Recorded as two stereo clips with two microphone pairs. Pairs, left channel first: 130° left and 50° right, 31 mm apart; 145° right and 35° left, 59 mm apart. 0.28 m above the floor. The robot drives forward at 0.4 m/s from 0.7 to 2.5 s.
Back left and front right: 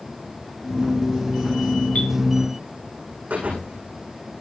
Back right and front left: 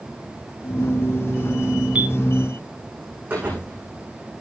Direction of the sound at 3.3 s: 25° right.